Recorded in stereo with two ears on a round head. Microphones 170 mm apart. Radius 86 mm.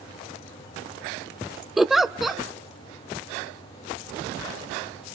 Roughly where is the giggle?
Centre.